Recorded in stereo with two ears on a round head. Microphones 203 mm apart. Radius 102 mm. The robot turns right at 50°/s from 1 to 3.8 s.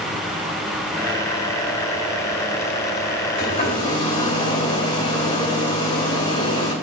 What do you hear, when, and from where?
3.4 s a hair dryer: 40° left (ahead or behind), 2.5 m; by 6.7 s 20° left (ahead or behind), 2.5 m